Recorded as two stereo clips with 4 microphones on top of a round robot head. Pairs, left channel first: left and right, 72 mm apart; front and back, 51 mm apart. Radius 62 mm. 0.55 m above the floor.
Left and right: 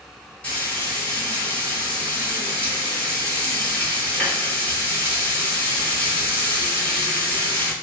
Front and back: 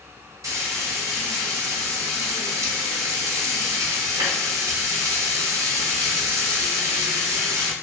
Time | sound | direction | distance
0.4 | frying | 165° left | 1.0 m